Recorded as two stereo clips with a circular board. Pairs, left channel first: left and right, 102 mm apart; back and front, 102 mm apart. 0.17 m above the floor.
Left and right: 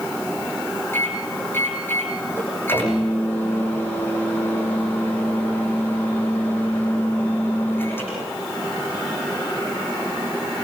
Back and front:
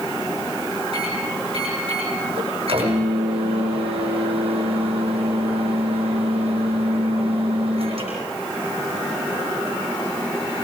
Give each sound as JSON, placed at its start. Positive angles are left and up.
{"t": 0.9, "sound": "a microwave", "azimuth_deg": 20, "distance_m": 7.5}